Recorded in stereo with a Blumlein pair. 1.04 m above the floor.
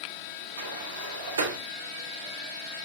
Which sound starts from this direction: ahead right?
A sliding door, at 0.6 s.